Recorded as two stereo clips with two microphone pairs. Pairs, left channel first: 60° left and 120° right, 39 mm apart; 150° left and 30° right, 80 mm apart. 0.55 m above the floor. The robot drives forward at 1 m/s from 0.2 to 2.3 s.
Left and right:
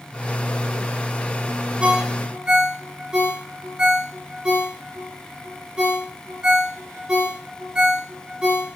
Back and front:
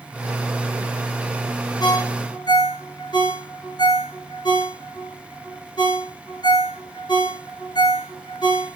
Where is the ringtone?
165° left, 4 m.